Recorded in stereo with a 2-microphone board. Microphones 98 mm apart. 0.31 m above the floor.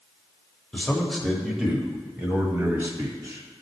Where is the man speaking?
10° left (ahead or behind), 1.2 m; by 3.6 s 35° right (ahead or behind), 2 m.